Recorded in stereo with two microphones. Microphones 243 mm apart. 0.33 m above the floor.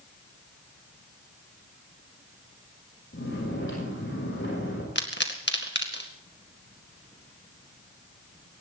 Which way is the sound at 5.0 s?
50° left (ahead or behind).